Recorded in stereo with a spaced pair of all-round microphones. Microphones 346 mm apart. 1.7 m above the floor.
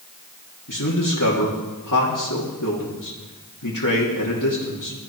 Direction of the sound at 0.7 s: 60° left (ahead or behind).